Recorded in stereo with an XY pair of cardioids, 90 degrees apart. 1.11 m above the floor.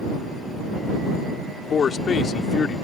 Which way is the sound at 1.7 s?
55° left.